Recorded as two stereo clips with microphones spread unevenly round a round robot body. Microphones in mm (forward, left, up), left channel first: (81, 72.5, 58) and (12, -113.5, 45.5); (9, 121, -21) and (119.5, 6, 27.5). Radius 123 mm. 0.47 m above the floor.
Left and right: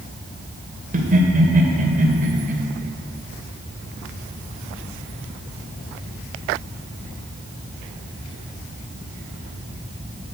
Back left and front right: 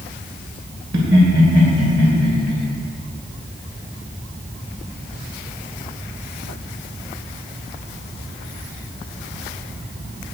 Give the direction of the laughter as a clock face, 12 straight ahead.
2 o'clock.